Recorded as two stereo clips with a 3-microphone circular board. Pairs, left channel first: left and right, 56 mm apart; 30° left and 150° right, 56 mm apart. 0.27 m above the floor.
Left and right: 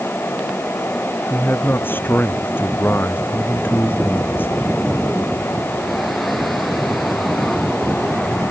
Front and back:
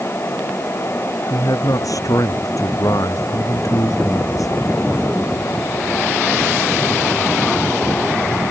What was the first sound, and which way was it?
A man speaking, 40° left.